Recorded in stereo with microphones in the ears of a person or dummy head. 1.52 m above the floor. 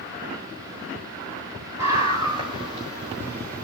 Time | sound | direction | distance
1.8 | a scream | 20° right (ahead or behind) | 4 m